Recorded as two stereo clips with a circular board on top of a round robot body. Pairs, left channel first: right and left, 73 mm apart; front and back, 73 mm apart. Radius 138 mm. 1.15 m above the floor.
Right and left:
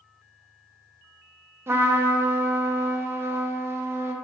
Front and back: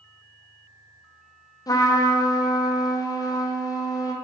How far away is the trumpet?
About 0.8 m.